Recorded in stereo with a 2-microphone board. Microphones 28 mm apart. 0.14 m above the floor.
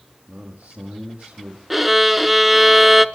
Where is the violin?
5° right (ahead or behind), 0.6 m.